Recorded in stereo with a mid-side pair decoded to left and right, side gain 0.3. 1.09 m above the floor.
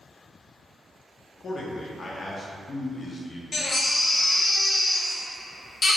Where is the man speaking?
55° left, 0.6 m.